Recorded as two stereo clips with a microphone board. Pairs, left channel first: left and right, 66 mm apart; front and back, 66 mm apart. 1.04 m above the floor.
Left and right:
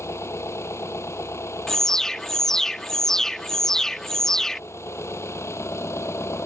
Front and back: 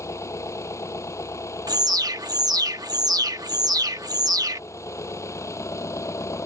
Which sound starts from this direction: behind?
An alarm, at 1.7 s.